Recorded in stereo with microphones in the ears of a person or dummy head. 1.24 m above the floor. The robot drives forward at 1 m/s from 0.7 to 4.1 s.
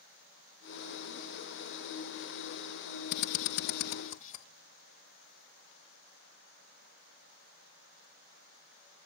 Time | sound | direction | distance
3.1 | a drill | 55° left (ahead or behind) | 0.9 m